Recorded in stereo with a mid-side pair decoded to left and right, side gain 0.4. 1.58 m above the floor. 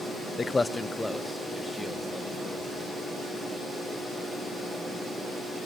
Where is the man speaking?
40° left, 0.7 m; by 2.9 s 5° right, 4.5 m.